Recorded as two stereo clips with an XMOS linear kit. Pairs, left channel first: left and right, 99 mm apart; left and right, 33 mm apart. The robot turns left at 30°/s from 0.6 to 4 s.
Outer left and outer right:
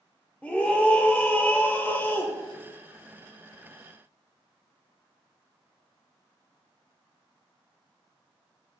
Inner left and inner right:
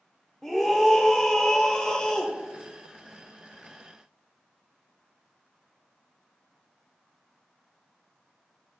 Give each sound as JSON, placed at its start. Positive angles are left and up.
{"t": 0.4, "sound": "a scream", "side_deg": 10, "distance_m": 0.8}